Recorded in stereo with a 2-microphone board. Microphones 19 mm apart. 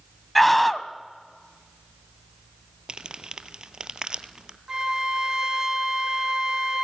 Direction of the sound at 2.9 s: 50° right (ahead or behind).